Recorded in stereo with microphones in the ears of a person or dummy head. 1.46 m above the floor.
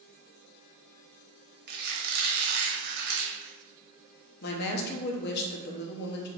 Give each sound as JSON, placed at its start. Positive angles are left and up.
{"t": 1.7, "sound": "a squeak", "side_deg": -55, "distance_m": 0.9}
{"t": 4.4, "sound": "a woman speaking", "side_deg": 55, "distance_m": 0.7}